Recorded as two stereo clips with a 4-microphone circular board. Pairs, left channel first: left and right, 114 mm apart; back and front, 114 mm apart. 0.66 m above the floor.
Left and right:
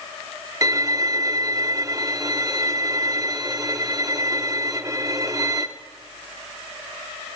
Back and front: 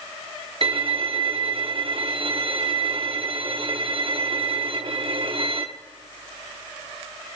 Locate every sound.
0.6 s a violin: 30° right, 0.8 m